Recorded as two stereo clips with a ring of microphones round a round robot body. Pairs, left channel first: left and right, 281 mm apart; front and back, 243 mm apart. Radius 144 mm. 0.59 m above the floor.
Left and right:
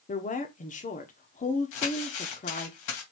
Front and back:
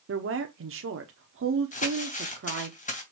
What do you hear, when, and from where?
0.1 s a woman speaking: 150° left, 1.1 m
1.7 s crumpling: 60° left, 3 m